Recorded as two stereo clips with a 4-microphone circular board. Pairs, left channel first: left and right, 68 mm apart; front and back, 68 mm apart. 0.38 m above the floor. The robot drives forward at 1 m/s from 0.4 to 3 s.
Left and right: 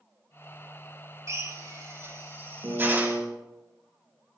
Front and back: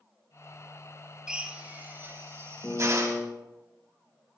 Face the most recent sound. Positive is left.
turn(degrees=-60)